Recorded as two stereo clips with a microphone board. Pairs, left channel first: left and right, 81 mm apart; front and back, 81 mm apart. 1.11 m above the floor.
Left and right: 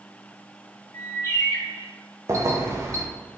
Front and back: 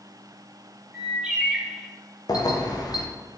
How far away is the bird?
About 0.8 m.